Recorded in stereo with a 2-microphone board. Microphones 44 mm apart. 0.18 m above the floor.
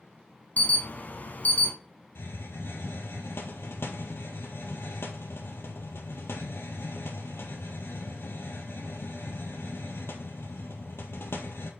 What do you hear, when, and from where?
0.6 s an alarm: 40° left (ahead or behind), 1.0 m
2.1 s a hiss: 65° left (ahead or behind), 1.5 m